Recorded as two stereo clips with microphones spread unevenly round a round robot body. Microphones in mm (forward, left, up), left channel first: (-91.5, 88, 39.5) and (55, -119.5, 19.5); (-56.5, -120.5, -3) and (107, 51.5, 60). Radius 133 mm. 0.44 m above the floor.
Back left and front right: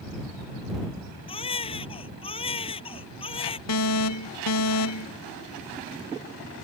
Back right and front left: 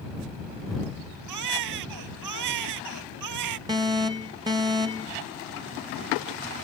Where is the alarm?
125° left.